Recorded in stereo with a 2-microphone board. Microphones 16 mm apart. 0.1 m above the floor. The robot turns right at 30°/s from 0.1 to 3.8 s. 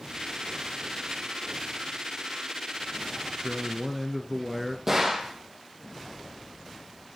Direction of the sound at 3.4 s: 10° right (ahead or behind).